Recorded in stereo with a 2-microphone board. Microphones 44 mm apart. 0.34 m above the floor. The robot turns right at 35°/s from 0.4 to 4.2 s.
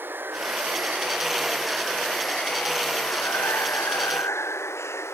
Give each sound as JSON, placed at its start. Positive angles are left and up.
{"t": 0.0, "sound": "running water", "azimuth_deg": -50}